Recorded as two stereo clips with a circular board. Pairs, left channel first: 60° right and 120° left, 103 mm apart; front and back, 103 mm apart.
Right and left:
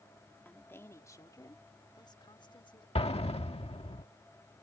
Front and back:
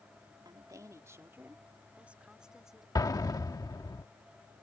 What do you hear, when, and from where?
0.5 s a woman speaking: 130° right; by 2.9 s 95° right
3.0 s an explosion: 50° right